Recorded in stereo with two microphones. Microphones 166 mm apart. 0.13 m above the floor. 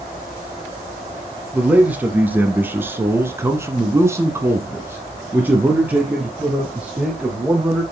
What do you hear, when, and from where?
1.5 s a man speaking: 10° right (ahead or behind), 3 m; by 7.8 s 5° right (ahead or behind), 4 m